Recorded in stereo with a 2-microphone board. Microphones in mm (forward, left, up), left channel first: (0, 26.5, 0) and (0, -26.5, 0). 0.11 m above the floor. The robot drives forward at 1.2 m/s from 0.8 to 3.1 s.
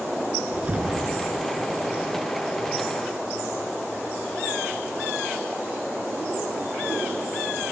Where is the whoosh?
30° right (ahead or behind), 1.9 m; by 1.9 s 20° right (ahead or behind), 2.5 m.